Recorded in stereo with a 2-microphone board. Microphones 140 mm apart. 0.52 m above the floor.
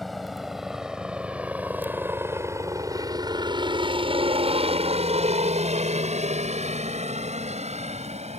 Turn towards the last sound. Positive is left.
turn(degrees=-50)  # may be behind; listen again after turning